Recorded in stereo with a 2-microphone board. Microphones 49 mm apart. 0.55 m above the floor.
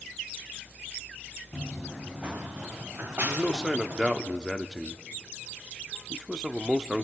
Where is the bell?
I don't hear a bell.